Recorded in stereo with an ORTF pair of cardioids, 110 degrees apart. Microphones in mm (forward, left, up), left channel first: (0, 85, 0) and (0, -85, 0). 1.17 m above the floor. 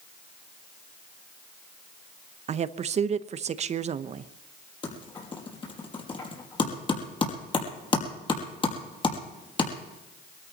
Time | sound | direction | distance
2.5 | a woman speaking | 40° right | 0.8 m
4.8 | typing on a keyboard | 30° left | 5 m